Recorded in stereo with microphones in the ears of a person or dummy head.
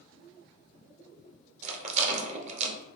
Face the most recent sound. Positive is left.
turn(degrees=-40)  # may be behind; listen again after turning